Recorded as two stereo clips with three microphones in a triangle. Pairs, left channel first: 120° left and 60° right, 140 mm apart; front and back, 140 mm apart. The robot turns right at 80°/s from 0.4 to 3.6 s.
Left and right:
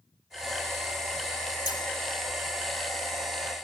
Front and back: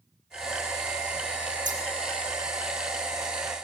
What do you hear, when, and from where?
1.6 s scissors: 175° left, 2 m; by 1.8 s 170° right, 2 m